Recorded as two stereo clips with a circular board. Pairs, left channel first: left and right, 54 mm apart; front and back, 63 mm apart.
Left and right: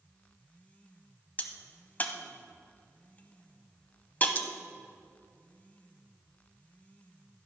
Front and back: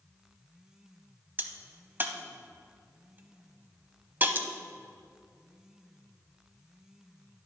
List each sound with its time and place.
1.4 s a crack: 140° left, 0.6 m